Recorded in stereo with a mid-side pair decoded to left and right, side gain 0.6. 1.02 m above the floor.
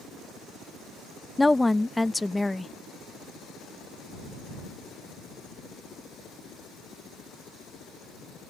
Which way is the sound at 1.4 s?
10° left.